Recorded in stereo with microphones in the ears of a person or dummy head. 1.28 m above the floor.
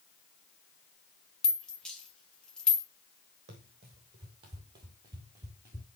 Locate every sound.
1.4 s a rattle: centre (ahead or behind), 1.4 m
3.5 s running footsteps: 40° right (ahead or behind), 2.5 m; by 5.8 s 20° right (ahead or behind), 1.5 m